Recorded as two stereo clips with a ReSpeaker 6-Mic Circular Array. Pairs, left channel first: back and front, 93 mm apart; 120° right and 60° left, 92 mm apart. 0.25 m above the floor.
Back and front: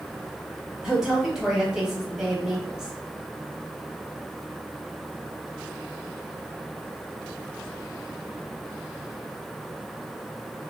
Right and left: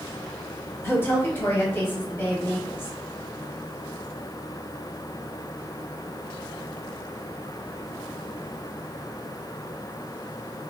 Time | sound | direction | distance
0.8 | a woman speaking | 80° right | 1.1 m